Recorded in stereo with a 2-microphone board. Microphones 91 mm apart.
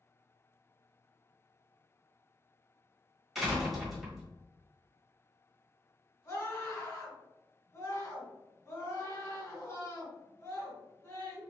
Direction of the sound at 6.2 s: 35° left (ahead or behind).